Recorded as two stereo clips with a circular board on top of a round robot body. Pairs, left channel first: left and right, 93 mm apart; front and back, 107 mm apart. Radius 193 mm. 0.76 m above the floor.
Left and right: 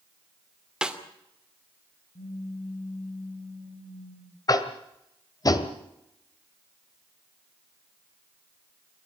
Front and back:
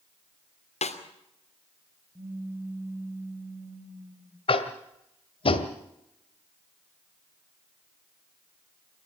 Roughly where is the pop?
Left.